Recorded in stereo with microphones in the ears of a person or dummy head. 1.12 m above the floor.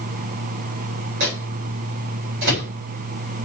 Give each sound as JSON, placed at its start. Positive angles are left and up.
{"t": 1.2, "sound": "a microwave", "side_deg": -60, "distance_m": 3.0}